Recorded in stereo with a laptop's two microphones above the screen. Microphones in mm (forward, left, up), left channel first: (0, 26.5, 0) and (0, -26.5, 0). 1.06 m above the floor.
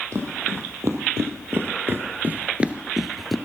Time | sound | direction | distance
0.1 | footsteps | 60° right (ahead or behind) | 2.5 m